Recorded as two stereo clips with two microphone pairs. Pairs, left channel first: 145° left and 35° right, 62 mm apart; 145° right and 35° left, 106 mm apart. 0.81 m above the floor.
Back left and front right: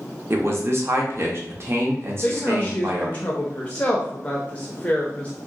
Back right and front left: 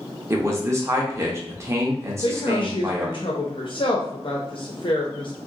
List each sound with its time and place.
0.3 s a man speaking: 20° right, 0.7 m
2.2 s a woman speaking: 155° right, 0.6 m